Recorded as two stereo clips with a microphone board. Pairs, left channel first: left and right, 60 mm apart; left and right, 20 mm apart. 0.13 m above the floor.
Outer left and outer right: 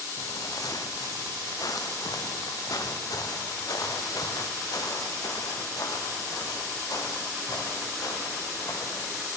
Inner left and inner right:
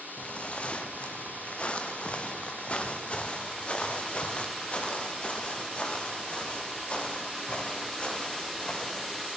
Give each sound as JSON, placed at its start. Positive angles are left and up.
{"t": 0.2, "sound": "footsteps", "side_deg": 75, "distance_m": 2.0}